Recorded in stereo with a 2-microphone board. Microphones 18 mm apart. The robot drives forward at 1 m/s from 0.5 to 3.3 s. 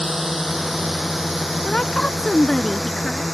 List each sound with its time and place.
0.0 s a drone: 15° right (ahead or behind); by 3.3 s 5° right (ahead or behind)
1.6 s a woman speaking: 50° left (ahead or behind); by 3.2 s 35° left (ahead or behind)